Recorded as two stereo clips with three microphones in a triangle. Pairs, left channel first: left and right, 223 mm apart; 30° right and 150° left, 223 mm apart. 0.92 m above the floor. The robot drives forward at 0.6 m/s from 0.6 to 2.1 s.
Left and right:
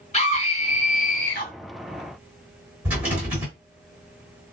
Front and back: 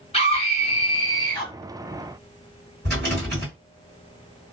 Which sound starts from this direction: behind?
A rattle, at 2.9 s.